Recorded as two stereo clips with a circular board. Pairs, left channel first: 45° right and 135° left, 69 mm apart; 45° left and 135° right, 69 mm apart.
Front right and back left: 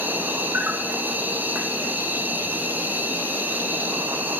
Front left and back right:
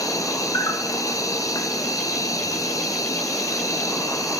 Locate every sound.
0.0 s an insect: 75° left, 0.9 m